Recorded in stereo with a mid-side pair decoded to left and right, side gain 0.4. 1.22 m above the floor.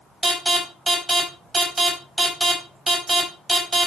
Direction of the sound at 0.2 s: 20° right.